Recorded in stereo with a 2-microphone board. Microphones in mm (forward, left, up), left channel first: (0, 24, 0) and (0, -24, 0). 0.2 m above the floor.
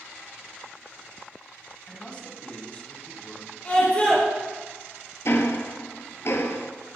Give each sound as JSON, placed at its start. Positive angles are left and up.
{"t": 1.9, "sound": "a man speaking", "side_deg": 25, "distance_m": 1.5}
{"t": 3.6, "sound": "a scream", "side_deg": 25, "distance_m": 3.5}
{"t": 5.2, "sound": "ticking", "side_deg": 60, "distance_m": 0.9}